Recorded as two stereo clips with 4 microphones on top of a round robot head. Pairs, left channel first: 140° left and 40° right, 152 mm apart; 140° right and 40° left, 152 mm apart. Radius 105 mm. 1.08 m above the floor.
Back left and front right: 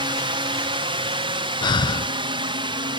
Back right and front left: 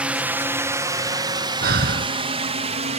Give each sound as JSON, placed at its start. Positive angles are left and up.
{"t": 0.0, "sound": "a drone", "azimuth_deg": -30}
{"t": 1.6, "sound": "breathing", "azimuth_deg": 75}